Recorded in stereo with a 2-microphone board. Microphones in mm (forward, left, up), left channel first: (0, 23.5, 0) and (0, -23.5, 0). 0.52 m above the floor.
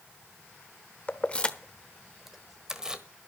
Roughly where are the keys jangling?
Left.